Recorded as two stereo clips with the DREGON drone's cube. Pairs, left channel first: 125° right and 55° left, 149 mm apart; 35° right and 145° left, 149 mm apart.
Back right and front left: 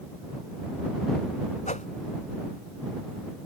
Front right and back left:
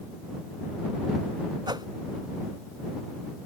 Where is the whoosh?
155° right.